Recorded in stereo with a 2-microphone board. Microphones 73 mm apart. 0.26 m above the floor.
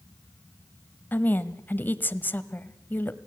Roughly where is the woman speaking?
Left.